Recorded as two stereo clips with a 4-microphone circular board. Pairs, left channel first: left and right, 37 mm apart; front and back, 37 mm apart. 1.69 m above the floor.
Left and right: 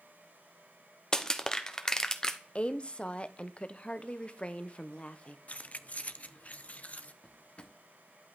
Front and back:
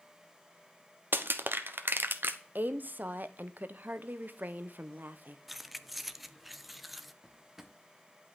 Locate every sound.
1.1 s crushing: 160° left, 1.1 m
2.5 s a woman speaking: 145° left, 1.1 m
5.5 s keys jangling: 95° left, 0.7 m
7.2 s a drawer: 105° left, 1.4 m